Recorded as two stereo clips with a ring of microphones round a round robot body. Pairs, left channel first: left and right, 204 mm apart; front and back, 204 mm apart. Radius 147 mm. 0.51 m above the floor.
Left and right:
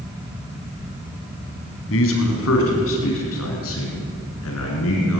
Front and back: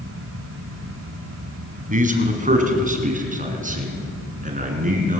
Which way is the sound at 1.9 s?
130° left.